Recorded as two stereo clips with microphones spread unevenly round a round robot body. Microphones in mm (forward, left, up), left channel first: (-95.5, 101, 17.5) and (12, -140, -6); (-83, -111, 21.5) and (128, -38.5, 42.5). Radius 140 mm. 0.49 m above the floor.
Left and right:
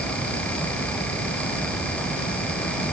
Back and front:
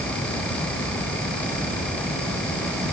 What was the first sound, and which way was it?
Only background noise.